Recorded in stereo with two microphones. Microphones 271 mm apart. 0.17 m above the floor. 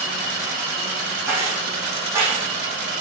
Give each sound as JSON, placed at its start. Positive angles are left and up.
{"t": 1.3, "sound": "keys jangling", "side_deg": -10, "distance_m": 6.0}